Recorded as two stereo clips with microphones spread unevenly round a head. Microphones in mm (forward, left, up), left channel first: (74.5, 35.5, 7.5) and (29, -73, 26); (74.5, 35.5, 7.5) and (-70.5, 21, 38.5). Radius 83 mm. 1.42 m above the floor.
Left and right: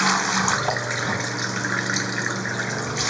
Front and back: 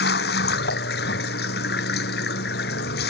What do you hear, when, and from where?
0.0 s running water: 25° right